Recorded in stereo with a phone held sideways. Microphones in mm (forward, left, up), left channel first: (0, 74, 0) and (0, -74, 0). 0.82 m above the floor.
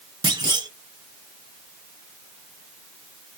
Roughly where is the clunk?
Right.